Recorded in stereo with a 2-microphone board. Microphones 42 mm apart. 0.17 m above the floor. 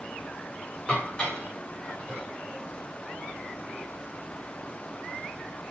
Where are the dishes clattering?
25° left (ahead or behind), 7 m.